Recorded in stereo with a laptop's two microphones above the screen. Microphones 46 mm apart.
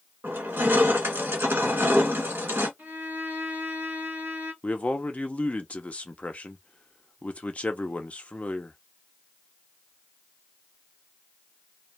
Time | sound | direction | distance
0.2 | crushing | 50° right (ahead or behind) | 1.5 m
2.8 | a violin | 45° right (ahead or behind) | 1.0 m
4.6 | a man speaking | 30° left (ahead or behind) | 0.5 m